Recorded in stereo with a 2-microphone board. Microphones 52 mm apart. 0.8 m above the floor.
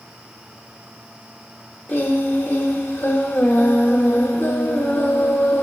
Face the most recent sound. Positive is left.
turn(degrees=40)  # may be behind; listen again after turning